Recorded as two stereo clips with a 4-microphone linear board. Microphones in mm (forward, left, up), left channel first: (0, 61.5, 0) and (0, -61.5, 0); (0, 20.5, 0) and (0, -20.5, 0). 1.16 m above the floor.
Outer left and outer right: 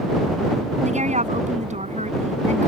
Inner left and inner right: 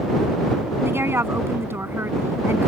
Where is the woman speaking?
70° right (ahead or behind).